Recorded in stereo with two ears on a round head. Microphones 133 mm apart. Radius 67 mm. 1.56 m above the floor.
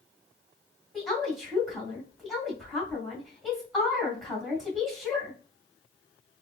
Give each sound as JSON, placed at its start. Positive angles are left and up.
{"t": 0.9, "sound": "a woman speaking", "side_deg": 0, "distance_m": 1.7}